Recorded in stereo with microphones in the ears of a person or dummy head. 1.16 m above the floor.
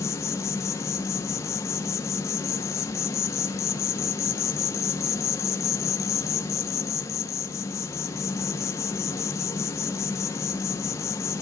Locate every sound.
0.0 s an insect: 20° left (ahead or behind), 0.9 m